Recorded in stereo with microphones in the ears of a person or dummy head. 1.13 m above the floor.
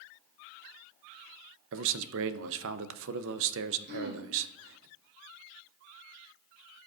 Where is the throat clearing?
50° right (ahead or behind), 2 m.